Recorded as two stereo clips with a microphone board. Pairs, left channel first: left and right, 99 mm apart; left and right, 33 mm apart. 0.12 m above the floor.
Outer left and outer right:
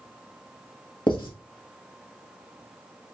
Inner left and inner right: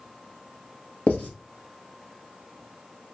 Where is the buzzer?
I don't hear a buzzer.